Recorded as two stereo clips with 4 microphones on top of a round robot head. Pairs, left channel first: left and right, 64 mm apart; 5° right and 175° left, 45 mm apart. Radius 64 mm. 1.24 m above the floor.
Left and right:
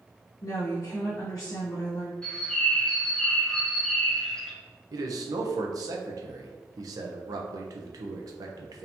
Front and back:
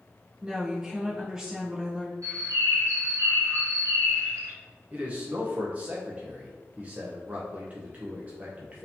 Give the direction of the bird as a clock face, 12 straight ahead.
6 o'clock.